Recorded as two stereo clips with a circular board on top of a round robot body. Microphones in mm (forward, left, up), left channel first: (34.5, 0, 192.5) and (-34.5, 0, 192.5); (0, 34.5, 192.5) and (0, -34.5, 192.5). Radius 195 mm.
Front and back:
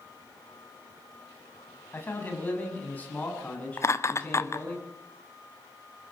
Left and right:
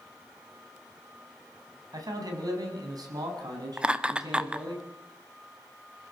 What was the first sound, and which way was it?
A man speaking, 60° right.